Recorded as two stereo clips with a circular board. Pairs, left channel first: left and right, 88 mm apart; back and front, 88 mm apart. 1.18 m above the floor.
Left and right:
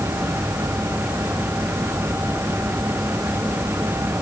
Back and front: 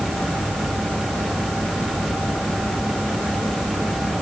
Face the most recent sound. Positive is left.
No sound to turn to.